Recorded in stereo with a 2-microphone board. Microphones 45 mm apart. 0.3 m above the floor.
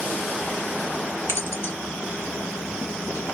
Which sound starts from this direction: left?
Keys jangling, at 1.3 s.